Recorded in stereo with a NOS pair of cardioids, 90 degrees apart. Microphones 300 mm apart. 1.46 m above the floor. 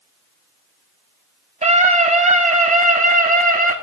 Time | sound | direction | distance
1.6 | a scream | 20° right | 8.5 m